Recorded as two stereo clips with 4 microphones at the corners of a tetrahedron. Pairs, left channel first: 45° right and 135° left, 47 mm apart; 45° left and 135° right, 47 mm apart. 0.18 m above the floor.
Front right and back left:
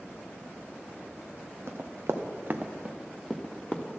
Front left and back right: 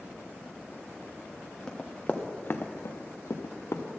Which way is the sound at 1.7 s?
120° left.